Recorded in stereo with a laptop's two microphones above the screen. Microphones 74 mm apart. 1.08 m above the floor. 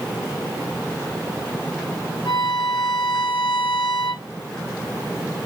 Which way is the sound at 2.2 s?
60° left (ahead or behind).